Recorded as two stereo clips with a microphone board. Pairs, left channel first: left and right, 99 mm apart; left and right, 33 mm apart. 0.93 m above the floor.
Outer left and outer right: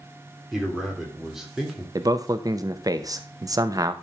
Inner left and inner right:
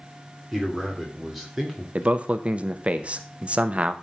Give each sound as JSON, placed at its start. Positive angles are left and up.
{"t": 0.5, "sound": "a man speaking", "side_deg": -5, "distance_m": 2.5}
{"t": 1.9, "sound": "a man speaking", "side_deg": -40, "distance_m": 0.8}